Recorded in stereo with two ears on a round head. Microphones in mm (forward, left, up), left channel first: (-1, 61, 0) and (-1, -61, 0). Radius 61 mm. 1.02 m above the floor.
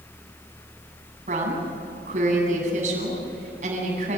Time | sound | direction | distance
1.3 | a woman speaking | 55° right (ahead or behind) | 8.5 m